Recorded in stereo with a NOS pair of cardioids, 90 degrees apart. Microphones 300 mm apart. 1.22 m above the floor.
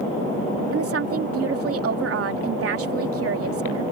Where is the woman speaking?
55° right.